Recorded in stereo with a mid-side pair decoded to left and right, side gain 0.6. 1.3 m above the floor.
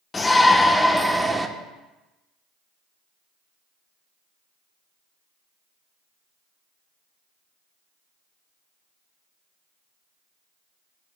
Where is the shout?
20° left, 1.1 m; by 1.5 s 20° right, 1.1 m.